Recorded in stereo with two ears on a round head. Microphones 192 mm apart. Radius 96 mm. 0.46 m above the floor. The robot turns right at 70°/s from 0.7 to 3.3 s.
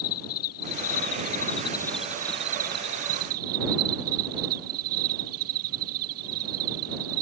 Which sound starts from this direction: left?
An insect, at 0.0 s.